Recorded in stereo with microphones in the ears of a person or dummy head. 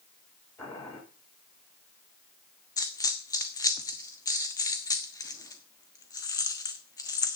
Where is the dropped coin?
20° left (ahead or behind), 1.2 m.